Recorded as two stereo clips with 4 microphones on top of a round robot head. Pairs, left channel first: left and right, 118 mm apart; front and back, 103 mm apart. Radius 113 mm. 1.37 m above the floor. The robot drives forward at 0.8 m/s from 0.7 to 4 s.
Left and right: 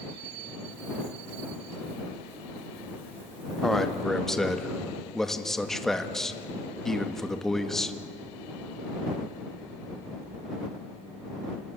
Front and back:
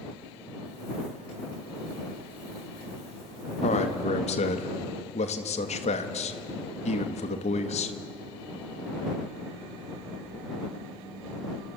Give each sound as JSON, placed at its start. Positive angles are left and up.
{"t": 3.6, "sound": "a man speaking", "azimuth_deg": 5, "distance_m": 2.0}